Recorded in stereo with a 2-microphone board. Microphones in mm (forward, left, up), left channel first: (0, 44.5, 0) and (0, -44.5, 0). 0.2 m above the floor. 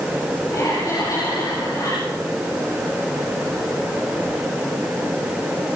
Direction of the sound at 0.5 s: 40° left (ahead or behind).